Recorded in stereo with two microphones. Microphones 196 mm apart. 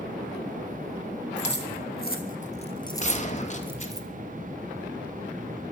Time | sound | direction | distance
1.4 | keys jangling | 65° left (ahead or behind) | 3.5 m
3.0 | a gunshot | 40° left (ahead or behind) | 2.5 m